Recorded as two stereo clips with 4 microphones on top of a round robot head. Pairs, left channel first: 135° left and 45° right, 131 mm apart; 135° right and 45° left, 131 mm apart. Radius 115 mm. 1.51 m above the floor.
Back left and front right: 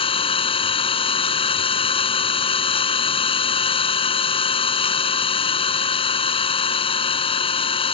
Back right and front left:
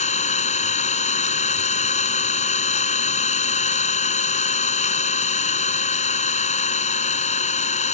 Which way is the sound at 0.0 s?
175° right.